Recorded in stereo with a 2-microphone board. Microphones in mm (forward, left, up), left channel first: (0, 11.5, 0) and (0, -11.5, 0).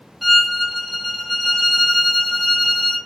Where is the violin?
10° right (ahead or behind), 1.0 m.